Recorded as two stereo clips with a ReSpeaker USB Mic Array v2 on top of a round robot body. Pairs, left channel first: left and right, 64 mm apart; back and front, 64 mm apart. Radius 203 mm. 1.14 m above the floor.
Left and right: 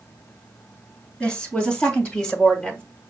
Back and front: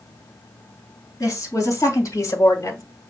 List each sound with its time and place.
1.2 s a woman speaking: 155° left, 3 m; by 2.8 s 160° left, 1.1 m